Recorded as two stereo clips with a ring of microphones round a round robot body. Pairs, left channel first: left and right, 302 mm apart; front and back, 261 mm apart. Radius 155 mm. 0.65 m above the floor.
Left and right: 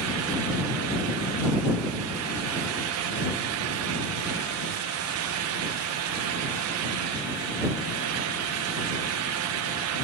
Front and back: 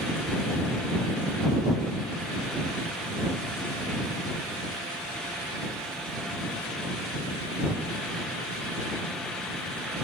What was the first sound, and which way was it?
Only background noise.